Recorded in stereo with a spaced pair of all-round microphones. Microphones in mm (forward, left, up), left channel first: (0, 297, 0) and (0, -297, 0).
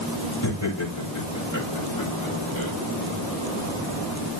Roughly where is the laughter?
Left.